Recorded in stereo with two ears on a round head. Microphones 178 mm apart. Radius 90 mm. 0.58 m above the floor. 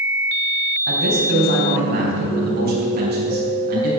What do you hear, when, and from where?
0.9 s a man speaking: 55° right (ahead or behind), 4 m